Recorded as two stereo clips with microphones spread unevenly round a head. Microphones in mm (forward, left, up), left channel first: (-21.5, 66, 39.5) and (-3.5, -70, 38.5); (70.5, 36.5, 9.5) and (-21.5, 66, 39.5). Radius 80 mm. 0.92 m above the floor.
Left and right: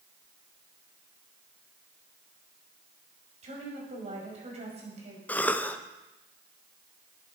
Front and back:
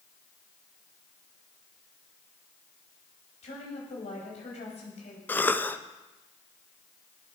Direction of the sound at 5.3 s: 20° left.